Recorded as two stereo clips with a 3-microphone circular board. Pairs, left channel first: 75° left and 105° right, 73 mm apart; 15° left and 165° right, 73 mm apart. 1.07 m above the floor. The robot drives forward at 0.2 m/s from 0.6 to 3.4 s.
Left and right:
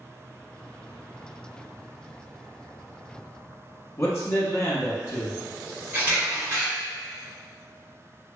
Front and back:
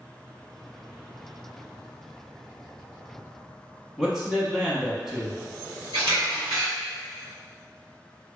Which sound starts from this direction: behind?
A camera shutter, at 5.9 s.